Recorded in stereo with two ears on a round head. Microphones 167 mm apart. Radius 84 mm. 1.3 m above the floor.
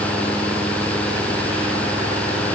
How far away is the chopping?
I don't hear chopping.